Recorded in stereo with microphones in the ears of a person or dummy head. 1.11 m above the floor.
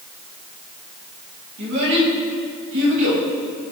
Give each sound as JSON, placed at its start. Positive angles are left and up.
{"t": 1.6, "sound": "a child speaking", "side_deg": -65, "distance_m": 3.5}